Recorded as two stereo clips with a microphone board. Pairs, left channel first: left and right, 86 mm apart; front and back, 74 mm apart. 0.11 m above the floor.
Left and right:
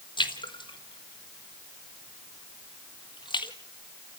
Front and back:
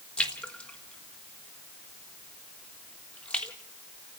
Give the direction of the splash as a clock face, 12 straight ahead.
10 o'clock.